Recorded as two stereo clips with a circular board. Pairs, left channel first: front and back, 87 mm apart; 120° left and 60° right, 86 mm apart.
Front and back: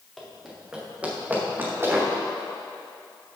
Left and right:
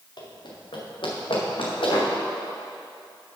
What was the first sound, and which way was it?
Running footsteps, 90° left.